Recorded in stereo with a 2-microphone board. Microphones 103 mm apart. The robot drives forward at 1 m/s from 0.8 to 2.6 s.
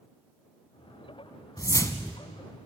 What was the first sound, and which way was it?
A whoosh, 35° left (ahead or behind).